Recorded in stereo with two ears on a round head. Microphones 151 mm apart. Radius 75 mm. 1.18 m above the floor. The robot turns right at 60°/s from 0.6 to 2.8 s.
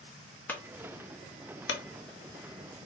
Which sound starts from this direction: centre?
A clunk, at 0.5 s.